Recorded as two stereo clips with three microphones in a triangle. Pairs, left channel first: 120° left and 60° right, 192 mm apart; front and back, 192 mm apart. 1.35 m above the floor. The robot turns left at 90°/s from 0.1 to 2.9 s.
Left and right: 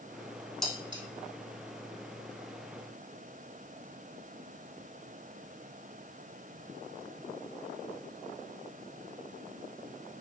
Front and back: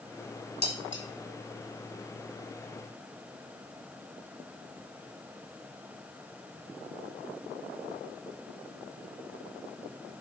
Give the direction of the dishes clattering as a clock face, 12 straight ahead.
11 o'clock.